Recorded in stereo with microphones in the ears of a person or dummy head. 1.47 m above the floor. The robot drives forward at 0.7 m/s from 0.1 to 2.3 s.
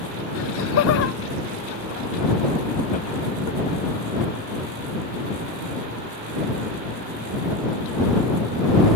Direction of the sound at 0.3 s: 70° left (ahead or behind).